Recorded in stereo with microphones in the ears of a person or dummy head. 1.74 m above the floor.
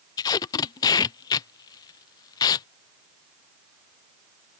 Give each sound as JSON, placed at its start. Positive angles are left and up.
{"t": 0.2, "sound": "tape being pulled", "side_deg": 20}